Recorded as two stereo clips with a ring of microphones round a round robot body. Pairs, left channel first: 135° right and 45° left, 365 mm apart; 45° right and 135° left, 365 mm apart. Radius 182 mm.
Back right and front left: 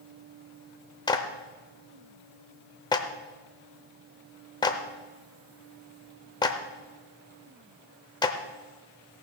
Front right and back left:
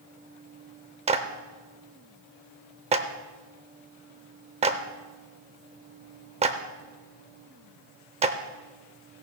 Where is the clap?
170° left, 0.6 m.